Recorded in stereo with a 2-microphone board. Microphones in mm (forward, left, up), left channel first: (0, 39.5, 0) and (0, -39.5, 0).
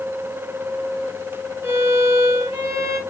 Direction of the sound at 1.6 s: 30° right (ahead or behind).